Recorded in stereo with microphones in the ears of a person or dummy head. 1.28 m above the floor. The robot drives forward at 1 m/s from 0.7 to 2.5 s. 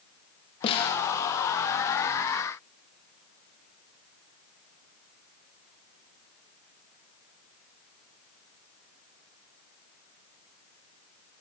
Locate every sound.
0.6 s a snare drum: 35° left (ahead or behind), 0.8 m